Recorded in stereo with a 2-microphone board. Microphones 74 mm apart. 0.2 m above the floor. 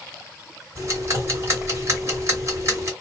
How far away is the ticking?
About 1.7 m.